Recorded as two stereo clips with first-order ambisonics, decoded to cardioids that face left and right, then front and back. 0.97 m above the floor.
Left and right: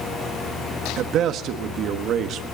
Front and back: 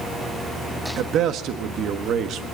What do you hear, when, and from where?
1.0 s a man speaking: 135° right, 1.5 m